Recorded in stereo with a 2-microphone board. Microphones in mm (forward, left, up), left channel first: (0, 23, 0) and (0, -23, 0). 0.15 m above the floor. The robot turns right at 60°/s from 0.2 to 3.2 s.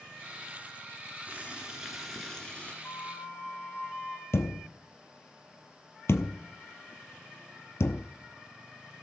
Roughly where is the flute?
Left.